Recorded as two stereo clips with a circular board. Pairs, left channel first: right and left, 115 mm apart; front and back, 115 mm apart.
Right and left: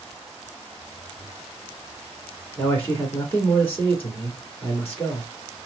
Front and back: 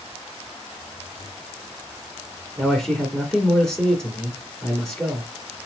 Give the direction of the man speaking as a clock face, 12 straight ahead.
2 o'clock.